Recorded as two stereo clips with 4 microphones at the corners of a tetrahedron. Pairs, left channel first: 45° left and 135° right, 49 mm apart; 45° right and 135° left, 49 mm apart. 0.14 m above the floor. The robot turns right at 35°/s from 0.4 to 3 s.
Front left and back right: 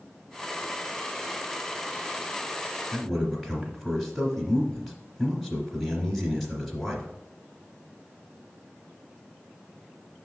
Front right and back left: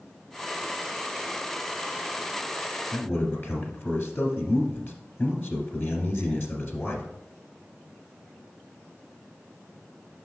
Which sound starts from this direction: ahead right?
A man speaking, at 2.9 s.